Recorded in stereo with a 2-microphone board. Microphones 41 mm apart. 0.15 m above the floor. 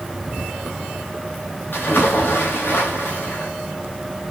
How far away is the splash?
About 3.5 m.